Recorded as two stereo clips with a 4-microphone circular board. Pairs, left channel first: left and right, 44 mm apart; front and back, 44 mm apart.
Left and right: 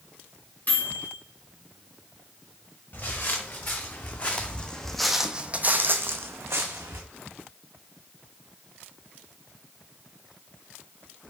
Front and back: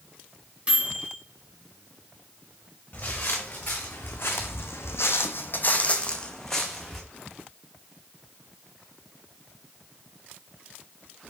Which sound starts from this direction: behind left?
A microwave, at 0.7 s.